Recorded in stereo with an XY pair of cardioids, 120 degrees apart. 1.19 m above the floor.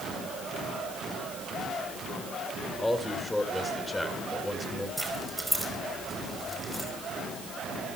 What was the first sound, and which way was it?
A man speaking, 10° left.